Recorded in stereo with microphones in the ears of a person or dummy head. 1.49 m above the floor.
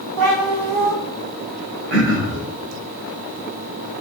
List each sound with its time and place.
0.2 s a cat meowing: 75° right (ahead or behind), 2.5 m
1.9 s throat clearing: 65° right (ahead or behind), 3 m